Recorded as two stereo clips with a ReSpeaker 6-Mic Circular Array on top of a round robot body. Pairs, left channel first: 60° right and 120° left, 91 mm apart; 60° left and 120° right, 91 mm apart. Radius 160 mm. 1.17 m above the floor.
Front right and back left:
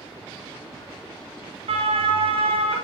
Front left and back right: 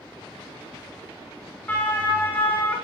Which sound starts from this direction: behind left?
A siren, at 1.7 s.